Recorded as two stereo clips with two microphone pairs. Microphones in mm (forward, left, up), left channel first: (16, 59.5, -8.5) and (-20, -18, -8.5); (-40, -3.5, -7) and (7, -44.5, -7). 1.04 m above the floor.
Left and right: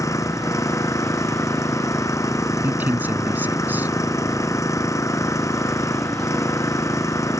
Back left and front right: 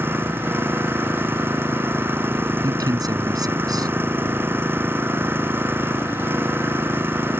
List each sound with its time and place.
0.0 s an engine running: 15° left
2.6 s a man speaking: 45° right